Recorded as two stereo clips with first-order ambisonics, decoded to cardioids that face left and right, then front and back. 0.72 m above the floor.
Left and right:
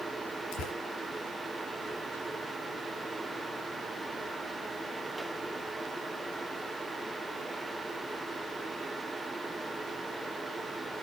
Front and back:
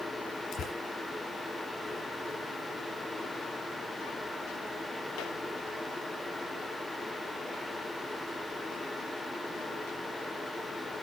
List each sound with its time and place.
0.5 s tearing paper: 55° left, 4 m